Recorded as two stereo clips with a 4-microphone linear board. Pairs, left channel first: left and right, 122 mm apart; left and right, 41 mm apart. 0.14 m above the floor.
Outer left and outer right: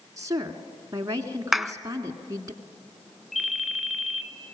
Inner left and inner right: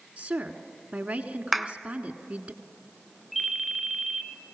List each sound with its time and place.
0.2 s a woman speaking: 30° right (ahead or behind), 1.4 m
1.5 s a clap: centre (ahead or behind), 0.9 m
3.3 s a ringtone: centre (ahead or behind), 1.0 m